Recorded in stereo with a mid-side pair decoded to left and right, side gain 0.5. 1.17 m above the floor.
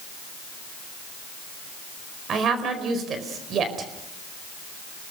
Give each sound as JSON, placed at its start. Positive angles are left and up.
{"t": 2.3, "sound": "a woman speaking", "azimuth_deg": -55, "distance_m": 4.5}